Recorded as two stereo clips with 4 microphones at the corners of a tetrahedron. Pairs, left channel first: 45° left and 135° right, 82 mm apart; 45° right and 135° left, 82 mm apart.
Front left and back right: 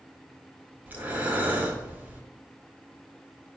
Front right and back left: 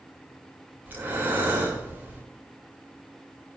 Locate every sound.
0.9 s breathing: 175° left, 0.6 m